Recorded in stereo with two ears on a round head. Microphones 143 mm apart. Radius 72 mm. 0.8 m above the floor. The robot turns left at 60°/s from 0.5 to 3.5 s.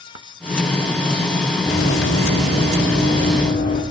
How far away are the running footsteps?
About 3 m.